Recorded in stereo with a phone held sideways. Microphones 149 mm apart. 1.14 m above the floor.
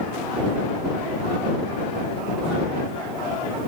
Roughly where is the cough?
I don't hear a cough.